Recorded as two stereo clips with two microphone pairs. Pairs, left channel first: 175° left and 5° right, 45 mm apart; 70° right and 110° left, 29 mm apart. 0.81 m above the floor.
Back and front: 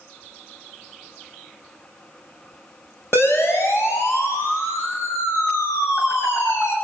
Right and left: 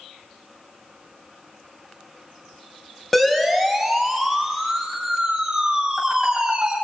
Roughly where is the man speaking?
No man speaking in this recording.